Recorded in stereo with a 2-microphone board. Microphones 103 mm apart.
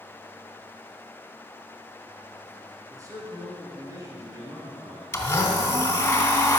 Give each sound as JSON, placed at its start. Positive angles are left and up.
{"t": 2.9, "sound": "a man speaking", "side_deg": -35, "distance_m": 3.0}
{"t": 5.1, "sound": "a blender", "side_deg": 25, "distance_m": 1.4}